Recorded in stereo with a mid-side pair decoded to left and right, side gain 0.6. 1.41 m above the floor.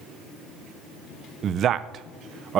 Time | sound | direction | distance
1.4 | a man speaking | 50° right | 0.6 m